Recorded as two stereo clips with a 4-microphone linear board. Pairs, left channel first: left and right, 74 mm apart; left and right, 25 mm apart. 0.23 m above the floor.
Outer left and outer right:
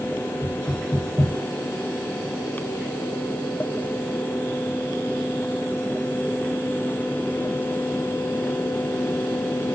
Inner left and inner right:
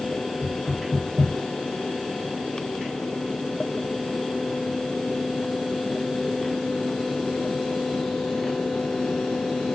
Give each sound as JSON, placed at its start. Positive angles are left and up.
{"t": 0.4, "sound": "knocking", "side_deg": 25, "distance_m": 6.5}